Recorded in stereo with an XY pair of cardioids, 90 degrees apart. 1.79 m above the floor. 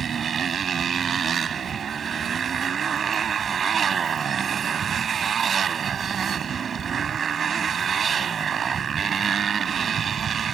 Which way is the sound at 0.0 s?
55° right.